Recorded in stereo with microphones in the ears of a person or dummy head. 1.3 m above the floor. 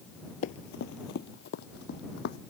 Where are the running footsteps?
45° left (ahead or behind); by 2.4 s 60° left (ahead or behind).